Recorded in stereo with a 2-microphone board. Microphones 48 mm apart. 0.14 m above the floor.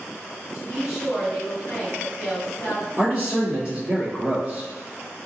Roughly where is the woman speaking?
Centre.